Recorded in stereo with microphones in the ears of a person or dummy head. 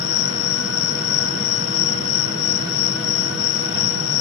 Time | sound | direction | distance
0.0 | an insect | 80° left | ?